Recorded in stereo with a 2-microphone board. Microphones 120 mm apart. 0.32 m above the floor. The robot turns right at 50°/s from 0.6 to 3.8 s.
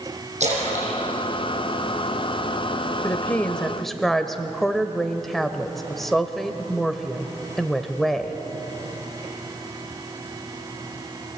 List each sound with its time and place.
0.4 s a splash: 65° right (ahead or behind), 7.5 m; by 2.4 s 25° right (ahead or behind), 7.5 m
3.0 s a woman speaking: 140° left, 1.0 m; by 8.4 s 175° left, 1.0 m